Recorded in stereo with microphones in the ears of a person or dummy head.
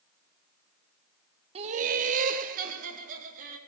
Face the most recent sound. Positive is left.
turn(degrees=-40)  # may be behind; listen again after turning